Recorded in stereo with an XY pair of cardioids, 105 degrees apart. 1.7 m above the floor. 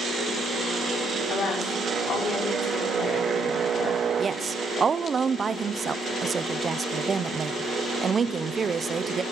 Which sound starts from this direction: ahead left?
A woman speaking, at 1.3 s.